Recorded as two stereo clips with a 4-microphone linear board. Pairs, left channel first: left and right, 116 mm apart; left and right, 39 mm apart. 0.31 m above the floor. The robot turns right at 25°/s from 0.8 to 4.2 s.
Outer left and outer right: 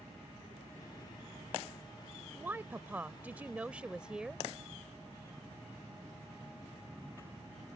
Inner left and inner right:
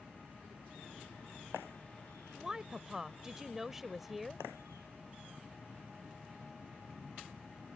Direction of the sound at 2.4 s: 20° right (ahead or behind).